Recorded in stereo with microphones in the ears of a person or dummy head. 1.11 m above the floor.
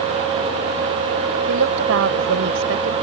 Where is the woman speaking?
70° right (ahead or behind).